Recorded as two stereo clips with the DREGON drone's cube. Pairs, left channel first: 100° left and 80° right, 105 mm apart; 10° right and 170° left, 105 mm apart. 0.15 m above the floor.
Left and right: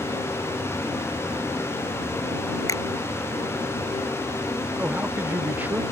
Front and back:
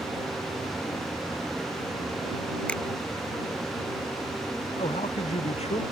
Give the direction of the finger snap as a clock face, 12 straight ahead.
10 o'clock.